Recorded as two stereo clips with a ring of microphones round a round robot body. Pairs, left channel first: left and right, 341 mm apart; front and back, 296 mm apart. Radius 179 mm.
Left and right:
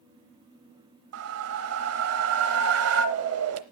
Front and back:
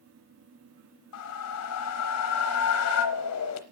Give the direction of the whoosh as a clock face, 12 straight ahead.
1 o'clock.